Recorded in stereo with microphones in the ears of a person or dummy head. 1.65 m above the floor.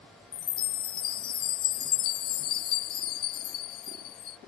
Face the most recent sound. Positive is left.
turn(degrees=25)  # may be behind; listen again after turning